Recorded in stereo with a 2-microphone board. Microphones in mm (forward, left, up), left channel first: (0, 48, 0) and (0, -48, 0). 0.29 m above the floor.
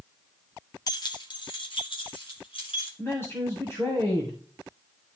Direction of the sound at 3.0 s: 25° left (ahead or behind).